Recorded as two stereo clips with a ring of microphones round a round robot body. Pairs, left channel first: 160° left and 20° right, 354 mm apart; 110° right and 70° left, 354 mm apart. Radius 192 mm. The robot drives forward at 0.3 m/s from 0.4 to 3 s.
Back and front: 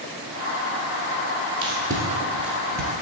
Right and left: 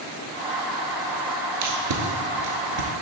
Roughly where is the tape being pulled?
Ahead left.